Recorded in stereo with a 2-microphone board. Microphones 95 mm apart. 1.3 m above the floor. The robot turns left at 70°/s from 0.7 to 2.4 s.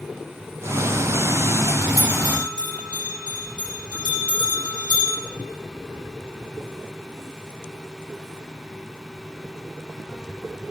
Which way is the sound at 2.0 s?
35° left (ahead or behind).